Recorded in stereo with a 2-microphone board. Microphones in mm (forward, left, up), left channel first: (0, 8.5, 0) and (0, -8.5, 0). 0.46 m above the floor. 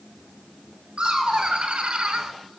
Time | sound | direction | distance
1.0 | laughter | 65° right (ahead or behind) | 3 m